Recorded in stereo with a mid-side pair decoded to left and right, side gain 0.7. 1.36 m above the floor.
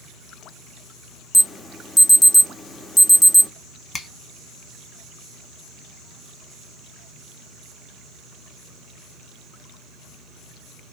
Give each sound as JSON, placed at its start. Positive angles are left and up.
{"t": 1.3, "sound": "an alarm", "azimuth_deg": 5, "distance_m": 0.5}
{"t": 3.9, "sound": "a finger snap", "azimuth_deg": 15, "distance_m": 1.1}